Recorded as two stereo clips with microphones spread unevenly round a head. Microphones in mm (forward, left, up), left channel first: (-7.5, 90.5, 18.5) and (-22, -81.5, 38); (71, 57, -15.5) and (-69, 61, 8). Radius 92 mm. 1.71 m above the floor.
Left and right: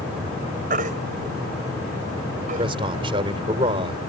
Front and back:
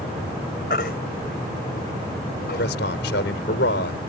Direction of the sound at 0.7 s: 50° right.